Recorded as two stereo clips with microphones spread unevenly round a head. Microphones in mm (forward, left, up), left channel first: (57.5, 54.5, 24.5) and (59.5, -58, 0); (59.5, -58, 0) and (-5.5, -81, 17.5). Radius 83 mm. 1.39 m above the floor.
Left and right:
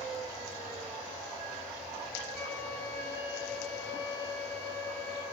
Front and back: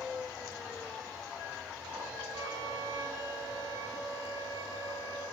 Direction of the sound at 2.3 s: 175° left.